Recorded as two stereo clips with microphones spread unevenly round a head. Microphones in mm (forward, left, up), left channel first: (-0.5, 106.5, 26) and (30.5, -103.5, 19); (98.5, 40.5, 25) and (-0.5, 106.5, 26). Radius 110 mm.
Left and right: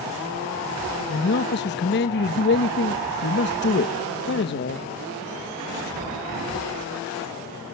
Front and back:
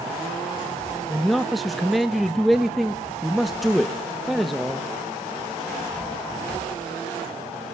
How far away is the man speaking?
About 1.1 m.